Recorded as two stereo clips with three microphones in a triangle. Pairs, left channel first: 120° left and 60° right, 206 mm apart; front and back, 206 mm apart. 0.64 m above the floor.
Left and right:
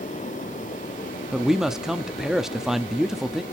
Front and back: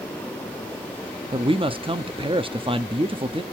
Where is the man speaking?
145° right, 0.7 m.